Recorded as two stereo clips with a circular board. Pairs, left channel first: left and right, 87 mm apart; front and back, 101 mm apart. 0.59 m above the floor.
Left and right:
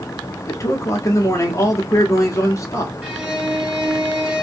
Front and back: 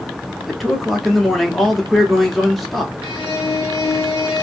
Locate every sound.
0.5 s a man speaking: 90° left, 0.8 m
3.0 s a violin: 15° right, 0.9 m